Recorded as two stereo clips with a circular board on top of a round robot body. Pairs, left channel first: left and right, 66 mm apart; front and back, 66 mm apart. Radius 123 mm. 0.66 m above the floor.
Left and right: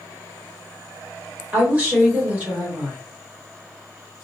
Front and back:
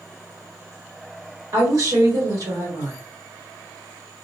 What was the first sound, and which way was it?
A woman speaking, 155° right.